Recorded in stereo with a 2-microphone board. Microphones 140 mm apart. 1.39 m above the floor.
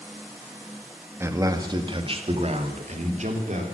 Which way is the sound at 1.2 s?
15° right (ahead or behind).